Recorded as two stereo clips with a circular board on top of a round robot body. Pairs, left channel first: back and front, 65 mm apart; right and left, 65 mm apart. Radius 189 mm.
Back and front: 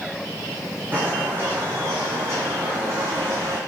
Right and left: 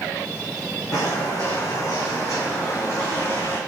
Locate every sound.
0.9 s footsteps: 60° right, 4.5 m; by 3.6 s 40° right, 4.5 m